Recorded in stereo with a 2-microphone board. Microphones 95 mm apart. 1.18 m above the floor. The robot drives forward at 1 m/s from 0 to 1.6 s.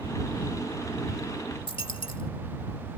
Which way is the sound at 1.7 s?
65° left (ahead or behind).